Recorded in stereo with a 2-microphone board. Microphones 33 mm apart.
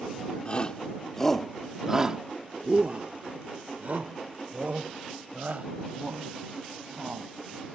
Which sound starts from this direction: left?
A shout, at 0.5 s.